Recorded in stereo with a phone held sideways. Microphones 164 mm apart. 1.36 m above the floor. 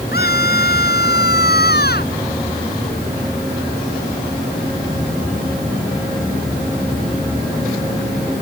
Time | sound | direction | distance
0.1 | a scream | 75° left (ahead or behind) | ?